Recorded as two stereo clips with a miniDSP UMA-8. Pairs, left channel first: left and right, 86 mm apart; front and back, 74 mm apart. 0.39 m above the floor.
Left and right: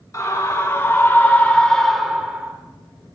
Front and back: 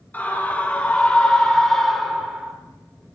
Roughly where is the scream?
Ahead left.